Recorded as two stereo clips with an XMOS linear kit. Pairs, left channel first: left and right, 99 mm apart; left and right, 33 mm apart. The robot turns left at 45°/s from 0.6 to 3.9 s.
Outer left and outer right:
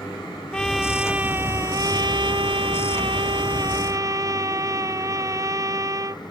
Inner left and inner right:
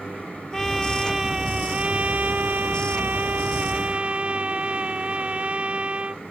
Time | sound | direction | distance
0.5 | a trumpet | 10° left | ?